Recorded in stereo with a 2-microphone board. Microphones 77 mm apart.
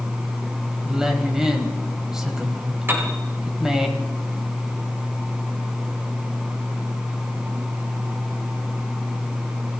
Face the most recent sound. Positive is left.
turn(degrees=-30)  # may be behind; listen again after turning